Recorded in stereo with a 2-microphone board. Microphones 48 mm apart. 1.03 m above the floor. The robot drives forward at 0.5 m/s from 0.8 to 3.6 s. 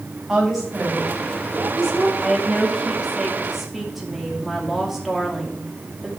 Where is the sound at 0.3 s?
5° right (ahead or behind), 3 m.